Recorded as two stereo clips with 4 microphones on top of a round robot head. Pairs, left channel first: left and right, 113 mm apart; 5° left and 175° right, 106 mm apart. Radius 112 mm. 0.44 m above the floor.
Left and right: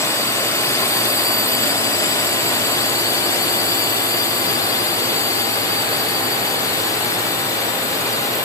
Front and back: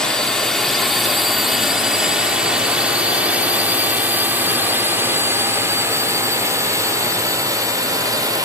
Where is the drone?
80° left; by 8.4 s 140° left.